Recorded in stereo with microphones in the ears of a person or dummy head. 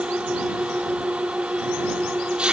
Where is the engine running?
5° right (ahead or behind).